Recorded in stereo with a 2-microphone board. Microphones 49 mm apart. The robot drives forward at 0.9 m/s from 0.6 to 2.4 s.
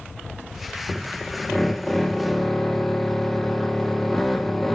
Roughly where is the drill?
Centre.